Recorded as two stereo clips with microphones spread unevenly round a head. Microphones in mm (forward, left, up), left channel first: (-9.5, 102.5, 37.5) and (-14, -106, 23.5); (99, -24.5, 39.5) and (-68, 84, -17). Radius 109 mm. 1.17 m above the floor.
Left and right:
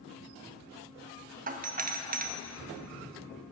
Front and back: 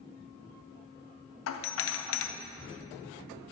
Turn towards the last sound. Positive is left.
turn(degrees=-55)